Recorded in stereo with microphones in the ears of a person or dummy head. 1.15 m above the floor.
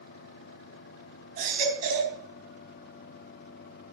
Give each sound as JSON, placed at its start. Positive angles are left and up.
{"t": 1.4, "sound": "a baby crying", "side_deg": -55, "distance_m": 3.5}